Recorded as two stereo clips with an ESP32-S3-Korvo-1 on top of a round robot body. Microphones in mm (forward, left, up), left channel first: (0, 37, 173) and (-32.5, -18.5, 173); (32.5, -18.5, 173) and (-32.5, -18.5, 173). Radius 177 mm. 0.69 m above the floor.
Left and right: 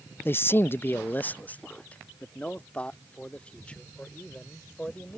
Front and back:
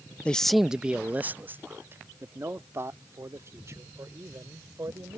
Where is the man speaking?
55° left; by 5.2 s 135° left.